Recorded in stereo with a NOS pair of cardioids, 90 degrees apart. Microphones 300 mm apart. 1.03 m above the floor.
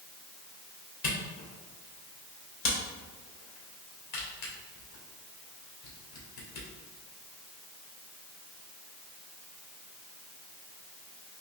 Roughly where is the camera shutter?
Left.